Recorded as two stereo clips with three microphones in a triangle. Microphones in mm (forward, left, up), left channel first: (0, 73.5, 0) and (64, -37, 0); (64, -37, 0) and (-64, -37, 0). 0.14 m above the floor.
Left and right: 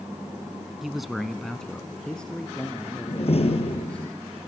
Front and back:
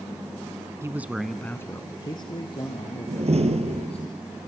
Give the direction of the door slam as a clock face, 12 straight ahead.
7 o'clock.